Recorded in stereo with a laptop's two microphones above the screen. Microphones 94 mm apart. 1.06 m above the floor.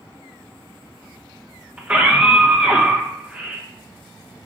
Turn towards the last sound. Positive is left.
turn(degrees=-15)  # may be behind; listen again after turning